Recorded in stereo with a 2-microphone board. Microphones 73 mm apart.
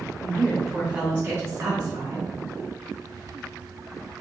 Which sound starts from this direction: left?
A woman speaking, at 0.2 s.